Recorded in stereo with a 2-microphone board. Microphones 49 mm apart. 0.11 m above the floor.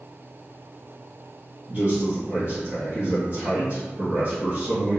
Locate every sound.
1.7 s a man speaking: 40° right (ahead or behind), 1.9 m